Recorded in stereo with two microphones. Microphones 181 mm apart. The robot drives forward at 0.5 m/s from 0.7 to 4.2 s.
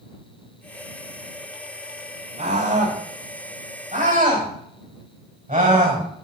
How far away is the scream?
About 5.5 m.